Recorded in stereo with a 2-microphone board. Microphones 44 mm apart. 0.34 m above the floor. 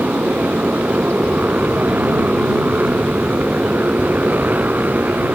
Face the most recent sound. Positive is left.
turn(degrees=-40)  # may be behind; listen again after turning